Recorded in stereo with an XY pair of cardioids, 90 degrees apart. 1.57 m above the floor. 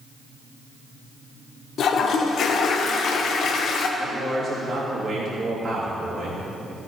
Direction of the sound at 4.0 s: 50° right.